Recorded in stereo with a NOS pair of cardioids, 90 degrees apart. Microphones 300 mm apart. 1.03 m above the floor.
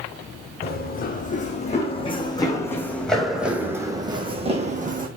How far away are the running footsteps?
About 3.5 m.